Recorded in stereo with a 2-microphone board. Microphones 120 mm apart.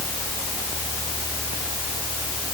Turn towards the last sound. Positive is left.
No sound to turn to.